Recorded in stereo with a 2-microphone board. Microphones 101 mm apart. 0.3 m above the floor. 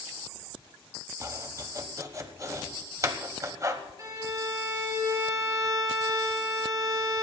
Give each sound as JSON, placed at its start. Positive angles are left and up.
{"t": 1.2, "sound": "chopping", "side_deg": -30, "distance_m": 1.2}
{"t": 4.0, "sound": "a violin", "side_deg": -35, "distance_m": 3.5}